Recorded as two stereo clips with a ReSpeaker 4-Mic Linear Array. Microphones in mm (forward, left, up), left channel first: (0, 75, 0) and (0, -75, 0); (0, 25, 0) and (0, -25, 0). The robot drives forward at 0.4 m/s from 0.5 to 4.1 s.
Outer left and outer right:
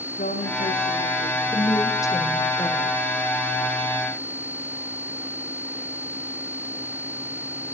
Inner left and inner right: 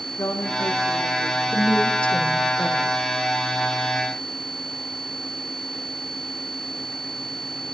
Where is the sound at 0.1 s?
70° left (ahead or behind), 9.5 m.